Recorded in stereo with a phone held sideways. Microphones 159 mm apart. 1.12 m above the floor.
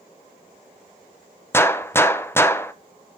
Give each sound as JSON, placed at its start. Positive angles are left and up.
{"t": 1.5, "sound": "a gunshot", "side_deg": 15, "distance_m": 0.6}